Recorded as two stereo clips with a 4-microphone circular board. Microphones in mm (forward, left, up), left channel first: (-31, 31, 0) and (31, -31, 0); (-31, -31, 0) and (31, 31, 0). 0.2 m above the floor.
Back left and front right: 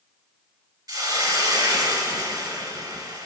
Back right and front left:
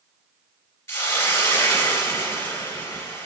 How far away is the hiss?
About 2 m.